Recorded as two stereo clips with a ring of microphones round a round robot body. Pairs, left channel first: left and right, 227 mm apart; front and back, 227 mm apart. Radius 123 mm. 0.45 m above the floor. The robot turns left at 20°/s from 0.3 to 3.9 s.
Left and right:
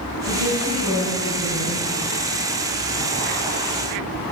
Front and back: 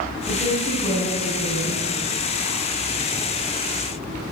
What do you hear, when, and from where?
0.3 s a woman speaking: 75° right, 5 m; by 1.9 s 110° right, 5 m